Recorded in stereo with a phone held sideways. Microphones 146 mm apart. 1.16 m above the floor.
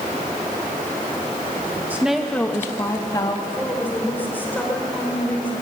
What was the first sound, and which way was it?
A woman speaking, 15° right (ahead or behind).